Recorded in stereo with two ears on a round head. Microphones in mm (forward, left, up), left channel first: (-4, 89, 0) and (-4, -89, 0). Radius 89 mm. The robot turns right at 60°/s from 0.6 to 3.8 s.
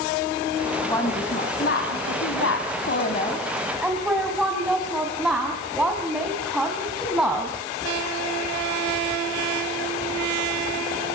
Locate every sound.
0.9 s a woman speaking: 10° left, 3 m; by 7.5 s 175° right, 3 m